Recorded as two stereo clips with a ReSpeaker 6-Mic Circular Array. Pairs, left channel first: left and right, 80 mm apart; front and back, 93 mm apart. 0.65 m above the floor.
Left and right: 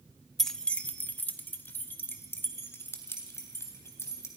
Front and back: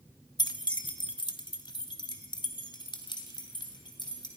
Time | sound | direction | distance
0.4 | keys jangling | 5° left | 0.8 m